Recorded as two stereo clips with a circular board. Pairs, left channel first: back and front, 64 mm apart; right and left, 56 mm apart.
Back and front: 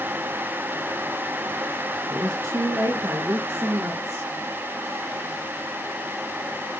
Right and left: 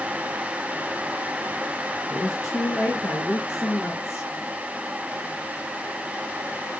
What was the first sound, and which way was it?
A woman speaking, 45° right.